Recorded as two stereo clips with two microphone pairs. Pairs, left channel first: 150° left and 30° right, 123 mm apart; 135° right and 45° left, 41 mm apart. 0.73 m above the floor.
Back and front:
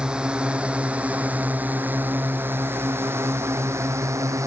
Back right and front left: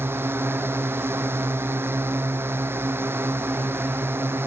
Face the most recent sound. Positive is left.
turn(degrees=35)